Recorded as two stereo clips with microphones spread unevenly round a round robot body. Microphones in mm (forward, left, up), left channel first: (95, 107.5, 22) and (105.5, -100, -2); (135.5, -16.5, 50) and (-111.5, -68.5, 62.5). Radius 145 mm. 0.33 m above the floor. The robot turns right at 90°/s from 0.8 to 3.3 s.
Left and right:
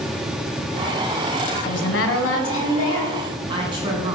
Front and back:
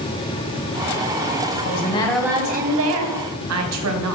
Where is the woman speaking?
55° left, 2 m; by 4.2 s 155° right, 2 m.